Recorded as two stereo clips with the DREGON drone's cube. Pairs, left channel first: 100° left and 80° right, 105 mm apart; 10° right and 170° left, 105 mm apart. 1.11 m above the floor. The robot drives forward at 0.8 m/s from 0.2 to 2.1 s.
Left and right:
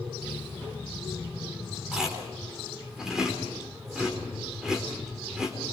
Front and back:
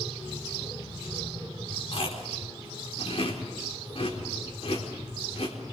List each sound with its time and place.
1.9 s chewing: 5° left, 4.5 m